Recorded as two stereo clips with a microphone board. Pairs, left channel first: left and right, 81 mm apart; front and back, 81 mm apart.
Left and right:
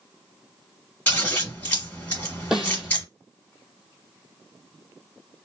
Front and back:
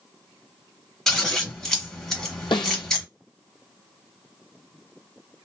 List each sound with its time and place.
1.1 s scissors: 75° left, 1.5 m
2.5 s a snare drum: 5° right, 1.0 m